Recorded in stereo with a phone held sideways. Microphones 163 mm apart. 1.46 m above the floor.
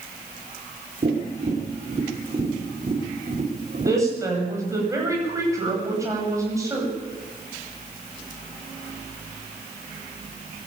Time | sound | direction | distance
1.0 | tapping | 50° right (ahead or behind) | 4.5 m
3.9 | a woman speaking | 20° right (ahead or behind) | 8.5 m